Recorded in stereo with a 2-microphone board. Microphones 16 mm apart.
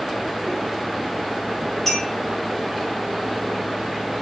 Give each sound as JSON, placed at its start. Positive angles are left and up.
{"t": 1.9, "sound": "a clink", "side_deg": 15, "distance_m": 4.5}